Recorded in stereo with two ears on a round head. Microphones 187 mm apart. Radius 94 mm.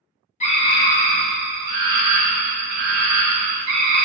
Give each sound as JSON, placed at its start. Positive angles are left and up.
{"t": 0.4, "sound": "a scream", "side_deg": 30, "distance_m": 0.9}